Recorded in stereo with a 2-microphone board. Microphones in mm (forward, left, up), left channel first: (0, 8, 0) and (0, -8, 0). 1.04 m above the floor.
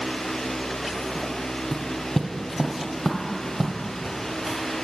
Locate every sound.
1.7 s footsteps: 40° left (ahead or behind), 1.3 m; by 4.6 s 30° right (ahead or behind), 2 m